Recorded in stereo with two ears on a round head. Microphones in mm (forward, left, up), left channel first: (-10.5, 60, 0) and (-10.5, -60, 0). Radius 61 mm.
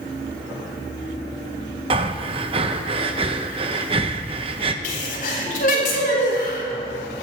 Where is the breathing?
40° right (ahead or behind), 0.9 m.